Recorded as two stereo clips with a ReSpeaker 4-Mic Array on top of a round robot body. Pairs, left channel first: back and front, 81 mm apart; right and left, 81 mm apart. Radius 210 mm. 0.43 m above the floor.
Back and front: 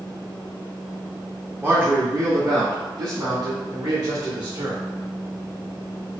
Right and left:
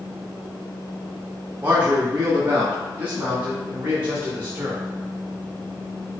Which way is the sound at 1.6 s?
40° left.